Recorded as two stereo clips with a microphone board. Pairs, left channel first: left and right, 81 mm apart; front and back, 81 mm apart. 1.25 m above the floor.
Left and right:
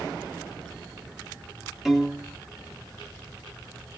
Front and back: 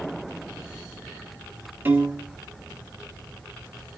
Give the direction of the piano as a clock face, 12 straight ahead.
6 o'clock.